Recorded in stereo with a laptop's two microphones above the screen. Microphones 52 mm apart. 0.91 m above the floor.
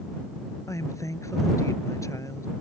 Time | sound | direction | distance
0.7 | a woman speaking | 75° left (ahead or behind) | ?